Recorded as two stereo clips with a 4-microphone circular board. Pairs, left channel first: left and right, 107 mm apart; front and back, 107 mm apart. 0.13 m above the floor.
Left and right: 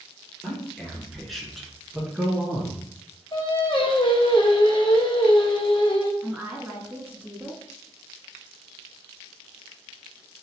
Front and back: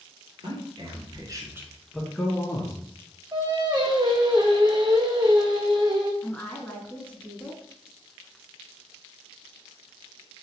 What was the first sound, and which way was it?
A man speaking, 175° left.